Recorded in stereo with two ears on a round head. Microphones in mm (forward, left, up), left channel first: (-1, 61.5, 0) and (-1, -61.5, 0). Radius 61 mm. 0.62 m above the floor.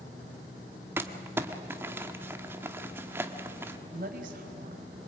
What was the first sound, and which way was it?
Crumpling, 15° right (ahead or behind).